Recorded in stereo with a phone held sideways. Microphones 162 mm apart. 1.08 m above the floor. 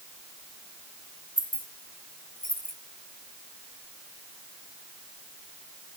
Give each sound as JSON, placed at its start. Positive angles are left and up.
{"t": 1.4, "sound": "keys jangling", "side_deg": 60, "distance_m": 2.0}